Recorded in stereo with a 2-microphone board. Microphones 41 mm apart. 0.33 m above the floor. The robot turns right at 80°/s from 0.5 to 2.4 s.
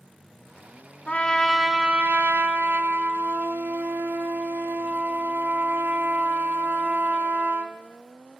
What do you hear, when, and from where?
1.1 s a trumpet: 140° left, 0.8 m; by 7.8 s 115° right, 0.8 m